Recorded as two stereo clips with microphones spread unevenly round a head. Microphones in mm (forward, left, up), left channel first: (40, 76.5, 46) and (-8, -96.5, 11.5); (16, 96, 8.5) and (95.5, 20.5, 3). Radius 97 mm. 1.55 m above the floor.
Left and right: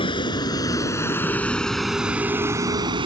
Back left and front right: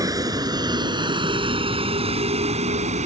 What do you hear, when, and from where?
0.0 s a vehicle: 15° left; by 3.1 s 40° right